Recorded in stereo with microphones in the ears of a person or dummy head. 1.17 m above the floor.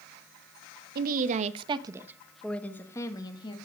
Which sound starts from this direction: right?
A woman speaking, at 0.9 s.